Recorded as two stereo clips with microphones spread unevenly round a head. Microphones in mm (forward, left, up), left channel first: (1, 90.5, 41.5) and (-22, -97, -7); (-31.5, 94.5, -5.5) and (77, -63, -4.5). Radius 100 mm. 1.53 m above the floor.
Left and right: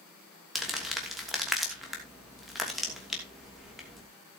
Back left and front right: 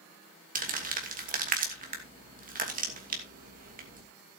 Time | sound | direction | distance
0.6 | crumpling | 10° right | 2.5 m